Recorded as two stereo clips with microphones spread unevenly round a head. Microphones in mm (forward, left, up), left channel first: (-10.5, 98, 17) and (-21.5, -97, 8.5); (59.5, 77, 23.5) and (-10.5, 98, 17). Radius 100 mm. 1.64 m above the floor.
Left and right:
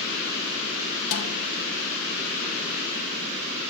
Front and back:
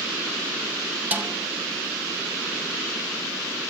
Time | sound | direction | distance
1.1 | a snare drum | 100° left | 3 m